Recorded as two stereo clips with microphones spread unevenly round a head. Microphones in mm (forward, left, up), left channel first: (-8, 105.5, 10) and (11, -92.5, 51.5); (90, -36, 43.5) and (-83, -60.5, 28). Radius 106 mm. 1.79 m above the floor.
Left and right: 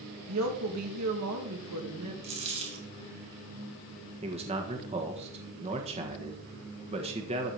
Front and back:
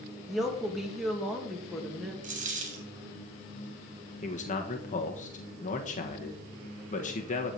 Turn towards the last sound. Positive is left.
turn(degrees=-30)